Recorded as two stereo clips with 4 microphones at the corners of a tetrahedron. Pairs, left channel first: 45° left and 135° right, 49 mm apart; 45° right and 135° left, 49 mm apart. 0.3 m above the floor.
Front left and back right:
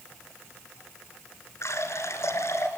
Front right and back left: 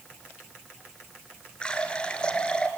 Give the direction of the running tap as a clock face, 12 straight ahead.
11 o'clock.